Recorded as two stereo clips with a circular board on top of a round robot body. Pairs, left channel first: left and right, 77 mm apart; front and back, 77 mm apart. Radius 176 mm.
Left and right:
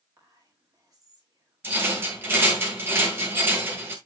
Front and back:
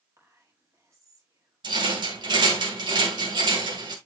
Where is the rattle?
155° right, 1.9 m.